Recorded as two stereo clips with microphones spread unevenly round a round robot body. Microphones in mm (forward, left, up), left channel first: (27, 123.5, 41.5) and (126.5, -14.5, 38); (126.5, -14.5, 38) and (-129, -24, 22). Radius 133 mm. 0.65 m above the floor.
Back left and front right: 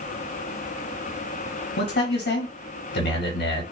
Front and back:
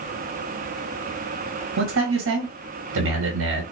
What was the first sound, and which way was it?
A man speaking, 150° left.